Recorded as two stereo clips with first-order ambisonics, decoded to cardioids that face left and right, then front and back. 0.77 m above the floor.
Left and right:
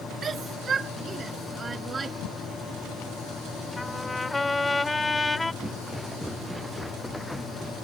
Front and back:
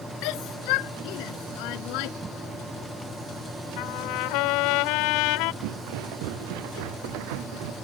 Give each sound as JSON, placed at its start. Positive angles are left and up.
{"t": 0.2, "sound": "a shout", "azimuth_deg": -20}
{"t": 2.2, "sound": "a whoosh", "azimuth_deg": 105}
{"t": 3.8, "sound": "a trumpet", "azimuth_deg": 10}
{"t": 5.6, "sound": "footsteps", "azimuth_deg": -175}